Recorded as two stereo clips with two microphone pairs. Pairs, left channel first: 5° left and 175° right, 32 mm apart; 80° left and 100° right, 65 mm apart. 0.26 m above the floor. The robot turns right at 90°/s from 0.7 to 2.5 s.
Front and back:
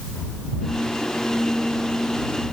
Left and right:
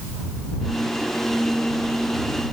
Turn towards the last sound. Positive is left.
No sound to turn to.